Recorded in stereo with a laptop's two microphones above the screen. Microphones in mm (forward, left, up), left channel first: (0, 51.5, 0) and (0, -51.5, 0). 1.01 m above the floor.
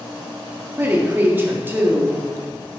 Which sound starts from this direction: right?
A woman speaking, at 0.8 s.